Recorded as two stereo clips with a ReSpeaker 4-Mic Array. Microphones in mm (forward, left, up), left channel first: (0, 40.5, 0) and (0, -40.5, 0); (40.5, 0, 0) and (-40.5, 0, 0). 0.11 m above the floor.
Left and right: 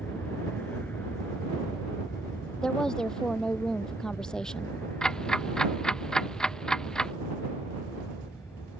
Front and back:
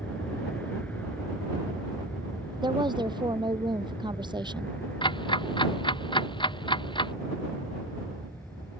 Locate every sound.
0.0 s an aircraft: 50° left; by 8.8 s 55° left
2.6 s a woman speaking: 170° left
5.0 s ticking: 10° left